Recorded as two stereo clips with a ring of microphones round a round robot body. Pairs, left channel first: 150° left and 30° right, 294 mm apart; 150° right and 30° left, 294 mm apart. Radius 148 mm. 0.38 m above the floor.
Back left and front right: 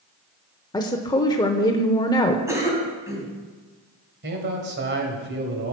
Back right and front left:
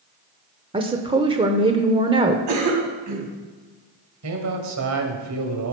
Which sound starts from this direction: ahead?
A man speaking, at 4.2 s.